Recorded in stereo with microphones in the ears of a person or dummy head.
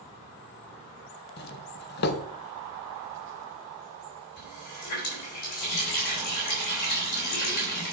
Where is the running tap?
60° left (ahead or behind), 3.5 m.